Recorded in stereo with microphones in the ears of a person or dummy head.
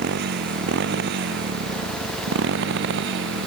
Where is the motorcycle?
60° right (ahead or behind); by 3.5 s 65° right (ahead or behind).